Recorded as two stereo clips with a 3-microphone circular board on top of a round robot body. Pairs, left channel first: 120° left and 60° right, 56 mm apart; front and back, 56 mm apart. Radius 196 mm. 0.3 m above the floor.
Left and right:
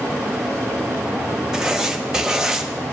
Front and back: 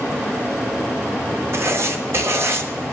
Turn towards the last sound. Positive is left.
turn(degrees=-140)